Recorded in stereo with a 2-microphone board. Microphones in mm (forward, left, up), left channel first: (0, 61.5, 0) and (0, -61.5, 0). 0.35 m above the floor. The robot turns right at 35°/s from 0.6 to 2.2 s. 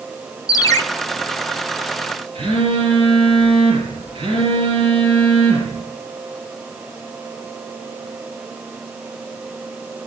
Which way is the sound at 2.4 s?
50° right (ahead or behind).